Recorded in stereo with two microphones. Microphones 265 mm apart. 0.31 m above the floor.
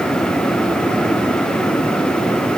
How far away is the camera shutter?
No camera shutter in this recording.